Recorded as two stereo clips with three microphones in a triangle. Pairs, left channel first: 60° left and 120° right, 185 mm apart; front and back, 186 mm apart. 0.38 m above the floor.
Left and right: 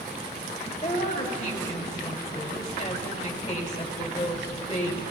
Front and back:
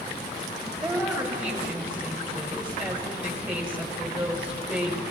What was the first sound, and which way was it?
A woman speaking, 100° left.